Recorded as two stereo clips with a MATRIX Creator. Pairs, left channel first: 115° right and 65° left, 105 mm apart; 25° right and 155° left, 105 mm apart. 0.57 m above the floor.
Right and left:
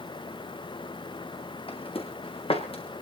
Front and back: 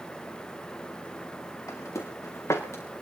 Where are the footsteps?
85° right, 3.5 m.